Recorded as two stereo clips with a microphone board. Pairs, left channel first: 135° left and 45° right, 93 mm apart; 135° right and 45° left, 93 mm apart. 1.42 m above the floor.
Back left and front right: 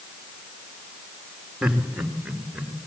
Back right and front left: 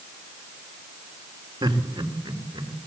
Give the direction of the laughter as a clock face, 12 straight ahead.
11 o'clock.